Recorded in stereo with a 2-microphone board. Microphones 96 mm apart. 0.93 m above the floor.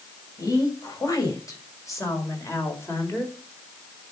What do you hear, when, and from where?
0.4 s a woman speaking: 40° left (ahead or behind), 6.5 m; by 3.3 s 25° left (ahead or behind), 4 m